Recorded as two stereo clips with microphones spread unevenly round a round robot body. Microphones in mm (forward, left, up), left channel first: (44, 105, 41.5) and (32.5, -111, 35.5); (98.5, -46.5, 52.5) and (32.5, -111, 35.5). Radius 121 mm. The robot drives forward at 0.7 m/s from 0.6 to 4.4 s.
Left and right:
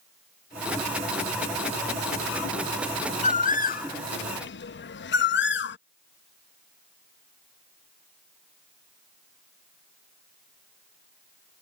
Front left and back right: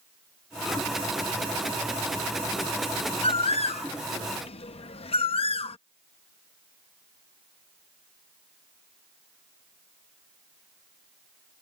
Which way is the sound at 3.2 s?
30° left.